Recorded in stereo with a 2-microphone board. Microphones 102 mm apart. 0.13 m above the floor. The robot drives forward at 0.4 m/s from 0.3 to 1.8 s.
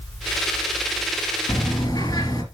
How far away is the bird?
About 2 m.